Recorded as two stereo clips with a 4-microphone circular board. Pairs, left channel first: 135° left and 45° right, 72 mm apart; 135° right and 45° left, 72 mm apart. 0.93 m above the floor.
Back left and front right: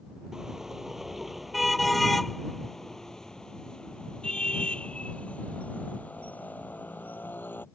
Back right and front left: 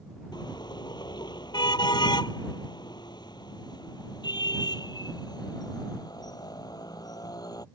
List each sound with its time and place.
0.3 s a car horn: 130° right; by 7.7 s 160° right